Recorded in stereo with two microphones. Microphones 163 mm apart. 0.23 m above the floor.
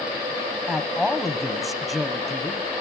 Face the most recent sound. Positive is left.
turn(degrees=0)  # may be behind; listen again after turning